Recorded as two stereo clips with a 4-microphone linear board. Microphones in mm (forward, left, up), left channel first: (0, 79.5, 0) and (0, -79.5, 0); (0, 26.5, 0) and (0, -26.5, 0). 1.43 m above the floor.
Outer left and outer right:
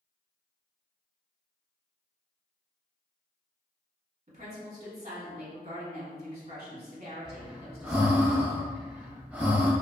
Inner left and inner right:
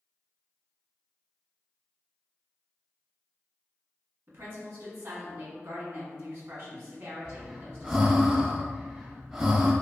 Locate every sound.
4.3 s a woman speaking: 50° right (ahead or behind), 1.1 m
7.2 s breathing: 10° right (ahead or behind), 0.5 m